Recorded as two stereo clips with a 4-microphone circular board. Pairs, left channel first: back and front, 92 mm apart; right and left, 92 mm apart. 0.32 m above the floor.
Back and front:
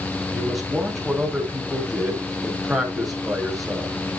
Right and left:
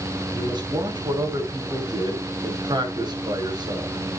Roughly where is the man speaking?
Left.